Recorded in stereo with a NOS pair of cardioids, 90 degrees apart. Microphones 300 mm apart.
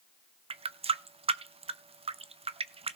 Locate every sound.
0.5 s a running tap: 20° right, 0.5 m